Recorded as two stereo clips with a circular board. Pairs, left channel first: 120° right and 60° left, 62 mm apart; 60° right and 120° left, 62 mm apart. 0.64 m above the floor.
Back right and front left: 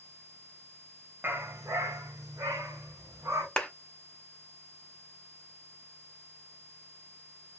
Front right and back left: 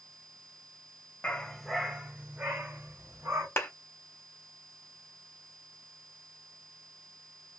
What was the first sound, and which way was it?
A dog barking, 5° left.